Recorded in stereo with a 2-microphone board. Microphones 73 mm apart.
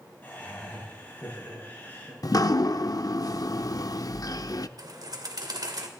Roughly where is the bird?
Right.